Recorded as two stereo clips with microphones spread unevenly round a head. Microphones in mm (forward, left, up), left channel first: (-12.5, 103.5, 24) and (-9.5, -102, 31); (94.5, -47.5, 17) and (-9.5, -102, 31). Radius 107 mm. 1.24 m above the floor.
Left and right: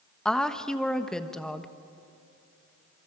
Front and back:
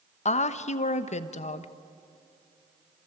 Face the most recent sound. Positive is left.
turn(degrees=5)